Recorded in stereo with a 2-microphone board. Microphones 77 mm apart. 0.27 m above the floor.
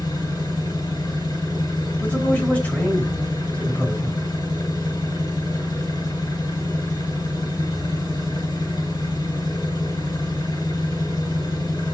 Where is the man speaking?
20° left (ahead or behind), 3 m.